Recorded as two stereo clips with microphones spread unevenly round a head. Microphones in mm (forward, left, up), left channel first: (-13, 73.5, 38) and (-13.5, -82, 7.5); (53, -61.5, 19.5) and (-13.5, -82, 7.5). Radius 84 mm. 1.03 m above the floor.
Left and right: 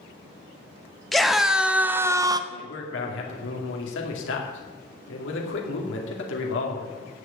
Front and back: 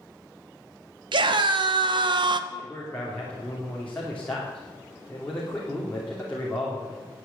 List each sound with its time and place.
1.1 s a scream: straight behind, 1.5 m; by 2.4 s 155° right, 0.9 m
2.5 s a man speaking: 100° left, 2.5 m